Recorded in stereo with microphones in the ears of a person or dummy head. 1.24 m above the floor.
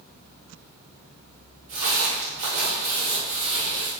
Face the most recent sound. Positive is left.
turn(degrees=-35)  # may be behind; listen again after turning